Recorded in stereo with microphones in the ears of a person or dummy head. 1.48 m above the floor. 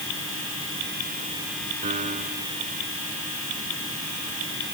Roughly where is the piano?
Right.